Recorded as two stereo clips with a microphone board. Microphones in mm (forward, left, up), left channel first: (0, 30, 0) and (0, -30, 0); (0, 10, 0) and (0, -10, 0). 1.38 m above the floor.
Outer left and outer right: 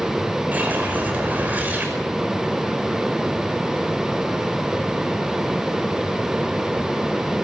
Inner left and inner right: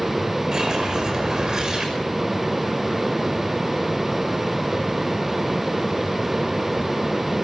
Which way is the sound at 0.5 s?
30° right (ahead or behind).